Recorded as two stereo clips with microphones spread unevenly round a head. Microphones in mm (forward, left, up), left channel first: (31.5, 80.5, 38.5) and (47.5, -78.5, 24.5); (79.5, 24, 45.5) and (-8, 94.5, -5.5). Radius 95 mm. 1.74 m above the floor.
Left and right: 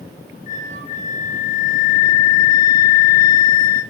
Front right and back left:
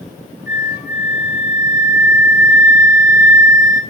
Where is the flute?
80° left, 1.6 m.